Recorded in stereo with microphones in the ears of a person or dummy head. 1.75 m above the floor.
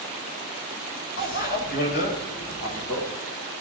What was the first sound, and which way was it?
A bicycle bell, 60° left (ahead or behind).